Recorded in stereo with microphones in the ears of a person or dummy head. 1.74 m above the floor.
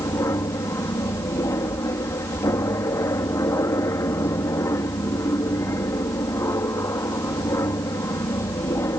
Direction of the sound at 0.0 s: 15° left (ahead or behind).